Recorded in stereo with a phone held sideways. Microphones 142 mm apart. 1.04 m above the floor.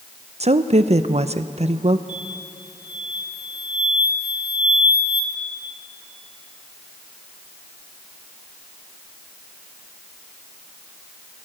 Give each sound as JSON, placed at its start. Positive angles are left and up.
{"t": 0.4, "sound": "a woman speaking", "side_deg": -50, "distance_m": 0.7}
{"t": 2.1, "sound": "an explosion", "side_deg": 35, "distance_m": 2.0}